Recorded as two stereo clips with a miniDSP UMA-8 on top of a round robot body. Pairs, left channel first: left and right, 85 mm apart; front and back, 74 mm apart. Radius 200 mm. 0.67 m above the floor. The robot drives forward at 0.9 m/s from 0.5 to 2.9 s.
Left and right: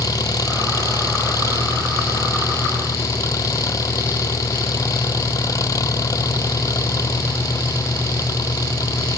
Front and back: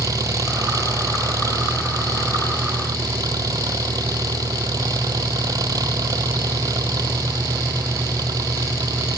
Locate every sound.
0.0 s an engine running: 140° left